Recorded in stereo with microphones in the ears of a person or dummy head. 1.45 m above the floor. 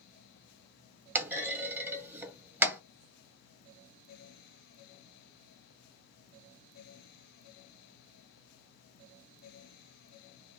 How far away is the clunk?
About 0.8 m.